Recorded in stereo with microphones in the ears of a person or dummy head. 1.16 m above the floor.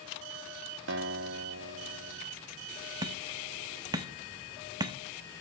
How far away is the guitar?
About 0.7 m.